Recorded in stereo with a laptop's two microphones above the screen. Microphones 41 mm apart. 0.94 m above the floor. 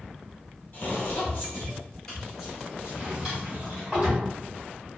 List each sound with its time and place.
0.7 s footsteps: 40° left (ahead or behind), 1.7 m; by 3.9 s 45° right (ahead or behind), 1.4 m
2.9 s a drawer: 15° right (ahead or behind), 1.4 m